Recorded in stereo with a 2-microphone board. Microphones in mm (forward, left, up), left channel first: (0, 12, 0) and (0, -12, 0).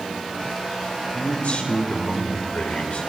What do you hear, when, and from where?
1.1 s a man speaking: 75° left (ahead or behind), 3.5 m